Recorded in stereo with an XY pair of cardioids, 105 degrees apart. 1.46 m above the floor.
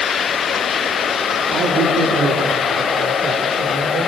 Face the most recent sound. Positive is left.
turn(degrees=-70)